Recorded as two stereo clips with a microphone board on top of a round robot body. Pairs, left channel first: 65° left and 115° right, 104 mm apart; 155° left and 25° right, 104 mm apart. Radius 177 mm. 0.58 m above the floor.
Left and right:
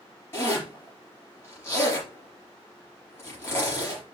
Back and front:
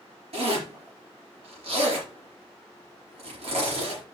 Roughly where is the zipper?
Ahead.